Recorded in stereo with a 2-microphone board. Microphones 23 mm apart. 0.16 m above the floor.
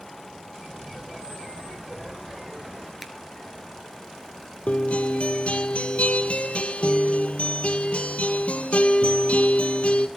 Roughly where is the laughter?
Right.